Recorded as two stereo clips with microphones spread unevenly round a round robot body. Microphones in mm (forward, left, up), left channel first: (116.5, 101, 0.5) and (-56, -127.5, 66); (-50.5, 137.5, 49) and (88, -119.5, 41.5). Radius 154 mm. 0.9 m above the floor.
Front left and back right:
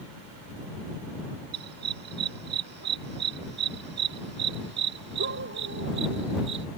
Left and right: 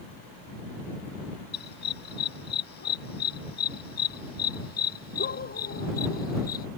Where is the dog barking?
175° left; by 6.7 s straight behind.